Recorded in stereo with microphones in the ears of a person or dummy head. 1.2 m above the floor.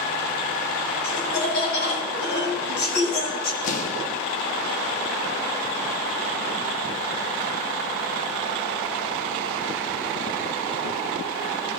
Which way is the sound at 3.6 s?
50° left (ahead or behind).